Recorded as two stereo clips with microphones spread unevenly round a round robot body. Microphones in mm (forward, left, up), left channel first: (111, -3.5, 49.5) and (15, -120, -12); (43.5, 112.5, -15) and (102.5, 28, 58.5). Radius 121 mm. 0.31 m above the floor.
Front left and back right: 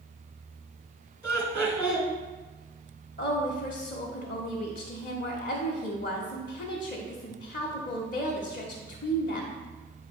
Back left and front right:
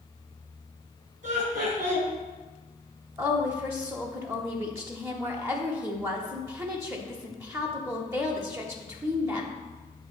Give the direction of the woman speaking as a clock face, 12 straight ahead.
10 o'clock.